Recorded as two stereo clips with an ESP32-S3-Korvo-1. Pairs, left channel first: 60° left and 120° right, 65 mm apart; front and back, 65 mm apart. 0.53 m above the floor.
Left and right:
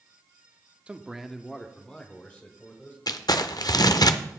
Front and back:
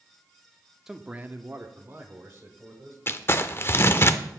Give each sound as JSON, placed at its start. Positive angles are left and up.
{"t": 0.9, "sound": "a man speaking", "azimuth_deg": -115, "distance_m": 0.6}
{"t": 3.1, "sound": "crumpling", "azimuth_deg": 50, "distance_m": 0.6}